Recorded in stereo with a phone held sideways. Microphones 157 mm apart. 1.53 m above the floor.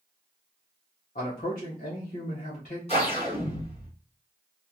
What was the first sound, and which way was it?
A man speaking, 55° left (ahead or behind).